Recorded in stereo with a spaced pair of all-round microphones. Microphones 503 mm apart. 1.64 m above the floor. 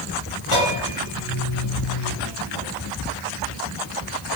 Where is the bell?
65° left (ahead or behind), 7 m.